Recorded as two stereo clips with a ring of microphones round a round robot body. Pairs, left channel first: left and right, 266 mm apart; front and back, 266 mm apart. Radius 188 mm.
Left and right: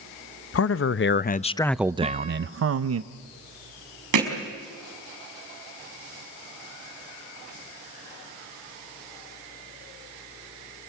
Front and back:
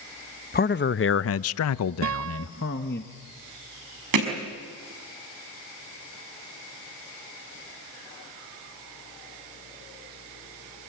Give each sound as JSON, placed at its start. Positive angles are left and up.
{"t": 0.5, "sound": "a man speaking", "azimuth_deg": 55, "distance_m": 0.9}
{"t": 2.0, "sound": "a guitar", "azimuth_deg": -160, "distance_m": 0.5}
{"t": 4.1, "sound": "hammering", "azimuth_deg": -135, "distance_m": 5.0}